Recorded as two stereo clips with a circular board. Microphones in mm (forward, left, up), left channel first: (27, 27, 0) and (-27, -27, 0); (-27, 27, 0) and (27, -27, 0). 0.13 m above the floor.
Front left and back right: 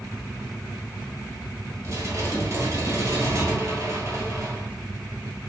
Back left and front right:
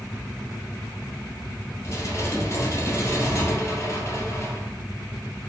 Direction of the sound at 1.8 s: 175° right.